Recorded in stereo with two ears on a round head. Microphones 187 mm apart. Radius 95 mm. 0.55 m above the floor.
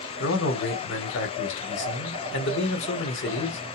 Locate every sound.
0.2 s a man speaking: 60° left (ahead or behind), 1.4 m